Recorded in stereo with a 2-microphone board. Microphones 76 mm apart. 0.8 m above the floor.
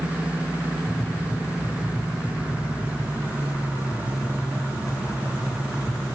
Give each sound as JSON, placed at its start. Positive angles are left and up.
{"t": 0.9, "sound": "tapping", "side_deg": 55, "distance_m": 4.0}